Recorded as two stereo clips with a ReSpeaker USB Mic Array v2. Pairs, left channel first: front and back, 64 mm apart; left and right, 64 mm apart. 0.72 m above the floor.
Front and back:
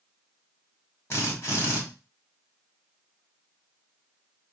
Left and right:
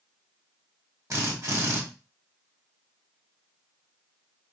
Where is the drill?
55° right, 1.7 m.